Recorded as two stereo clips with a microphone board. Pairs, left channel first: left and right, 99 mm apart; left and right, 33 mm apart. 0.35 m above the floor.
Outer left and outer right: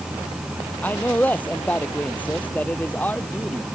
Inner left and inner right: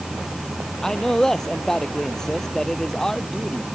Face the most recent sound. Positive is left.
turn(degrees=15)  # may be behind; listen again after turning